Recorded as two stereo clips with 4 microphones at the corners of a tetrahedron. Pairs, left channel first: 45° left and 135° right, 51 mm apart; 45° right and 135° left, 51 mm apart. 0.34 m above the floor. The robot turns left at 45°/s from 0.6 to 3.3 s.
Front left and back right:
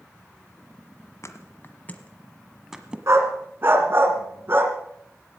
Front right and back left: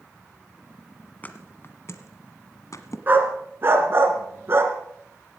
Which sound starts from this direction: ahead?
A thud, at 1.2 s.